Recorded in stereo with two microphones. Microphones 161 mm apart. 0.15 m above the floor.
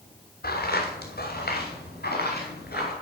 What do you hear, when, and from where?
0.4 s footsteps: 75° left (ahead or behind), 2.5 m; by 2.9 s 80° left, 4.5 m